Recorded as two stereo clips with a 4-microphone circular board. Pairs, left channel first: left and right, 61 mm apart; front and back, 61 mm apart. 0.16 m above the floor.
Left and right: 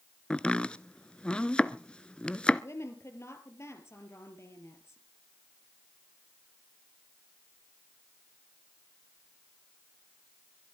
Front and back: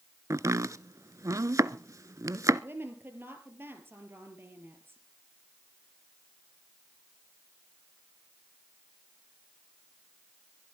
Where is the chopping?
165° left, 0.5 m.